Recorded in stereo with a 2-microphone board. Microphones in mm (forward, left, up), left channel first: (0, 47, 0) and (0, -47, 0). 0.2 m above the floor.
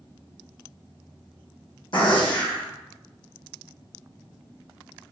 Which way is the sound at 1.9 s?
65° left (ahead or behind).